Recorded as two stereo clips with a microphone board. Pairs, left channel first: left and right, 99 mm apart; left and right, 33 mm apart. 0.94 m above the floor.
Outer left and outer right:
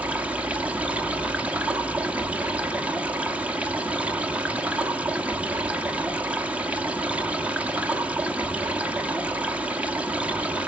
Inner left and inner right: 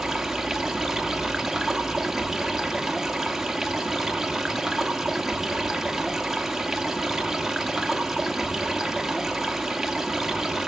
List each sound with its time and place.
0.0 s running water: 15° right (ahead or behind), 1.1 m